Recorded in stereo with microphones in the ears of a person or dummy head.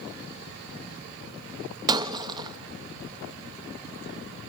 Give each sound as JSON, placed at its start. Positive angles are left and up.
{"t": 1.9, "sound": "breaking glass", "side_deg": -25, "distance_m": 0.9}